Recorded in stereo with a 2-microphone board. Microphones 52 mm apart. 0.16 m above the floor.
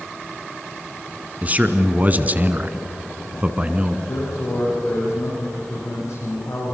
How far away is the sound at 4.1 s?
About 9 m.